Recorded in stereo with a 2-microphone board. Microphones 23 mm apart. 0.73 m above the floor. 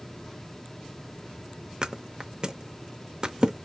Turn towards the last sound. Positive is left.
turn(degrees=-35)  # may be behind; listen again after turning